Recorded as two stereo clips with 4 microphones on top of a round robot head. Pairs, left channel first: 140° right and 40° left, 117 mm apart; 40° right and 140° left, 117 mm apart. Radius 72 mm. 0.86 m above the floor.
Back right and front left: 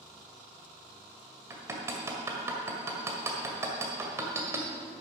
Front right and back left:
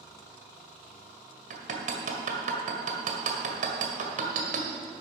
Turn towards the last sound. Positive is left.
turn(degrees=115)